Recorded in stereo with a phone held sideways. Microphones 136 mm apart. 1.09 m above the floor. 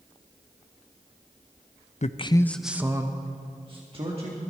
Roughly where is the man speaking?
Left.